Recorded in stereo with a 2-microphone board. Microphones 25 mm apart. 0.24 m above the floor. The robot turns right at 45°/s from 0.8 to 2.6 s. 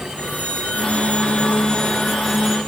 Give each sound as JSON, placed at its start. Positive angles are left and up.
{"t": 0.2, "sound": "a phone ringing", "azimuth_deg": 115, "distance_m": 5.5}